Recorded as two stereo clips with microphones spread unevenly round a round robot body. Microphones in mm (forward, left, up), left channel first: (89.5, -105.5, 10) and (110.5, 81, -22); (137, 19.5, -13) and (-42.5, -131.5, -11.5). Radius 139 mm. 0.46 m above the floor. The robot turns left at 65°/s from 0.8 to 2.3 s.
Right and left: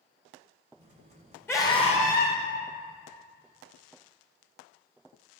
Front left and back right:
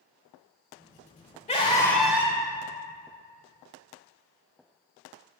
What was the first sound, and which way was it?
A scream, 15° right.